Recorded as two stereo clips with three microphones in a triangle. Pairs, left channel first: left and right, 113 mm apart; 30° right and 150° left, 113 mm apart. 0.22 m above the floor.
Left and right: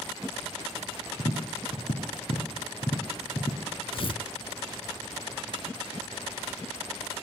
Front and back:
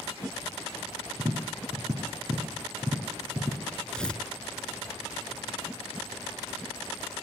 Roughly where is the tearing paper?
Ahead left.